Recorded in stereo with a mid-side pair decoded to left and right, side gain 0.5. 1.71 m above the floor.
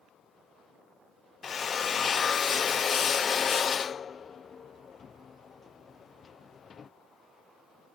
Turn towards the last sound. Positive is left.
turn(degrees=40)